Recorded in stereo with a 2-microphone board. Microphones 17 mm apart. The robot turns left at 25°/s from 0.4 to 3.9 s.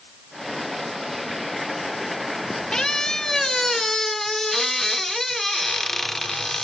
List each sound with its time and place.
2.7 s a squeak: 50° left (ahead or behind), 1.1 m; by 6.7 s 25° left (ahead or behind), 1.1 m